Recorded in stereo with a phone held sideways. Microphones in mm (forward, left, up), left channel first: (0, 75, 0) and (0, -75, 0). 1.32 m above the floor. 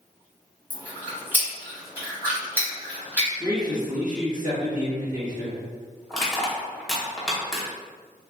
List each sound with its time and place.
0.7 s chewing: 10° right (ahead or behind), 1.4 m
3.4 s a man speaking: 60° right (ahead or behind), 1.4 m
6.1 s crushing: centre (ahead or behind), 0.9 m